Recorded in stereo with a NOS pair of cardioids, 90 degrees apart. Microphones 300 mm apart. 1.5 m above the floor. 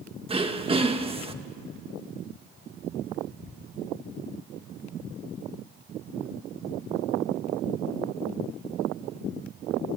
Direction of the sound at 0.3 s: 20° right.